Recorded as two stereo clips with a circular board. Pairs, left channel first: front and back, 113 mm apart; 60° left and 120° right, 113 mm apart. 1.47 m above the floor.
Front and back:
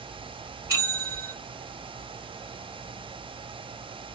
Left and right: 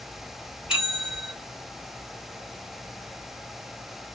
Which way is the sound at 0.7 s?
165° left.